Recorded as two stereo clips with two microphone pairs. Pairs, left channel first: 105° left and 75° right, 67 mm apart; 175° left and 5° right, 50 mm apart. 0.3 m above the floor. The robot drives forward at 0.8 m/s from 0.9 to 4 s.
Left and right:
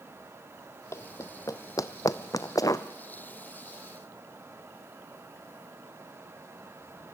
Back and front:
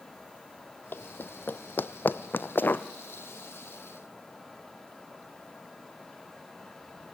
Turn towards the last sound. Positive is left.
turn(degrees=150)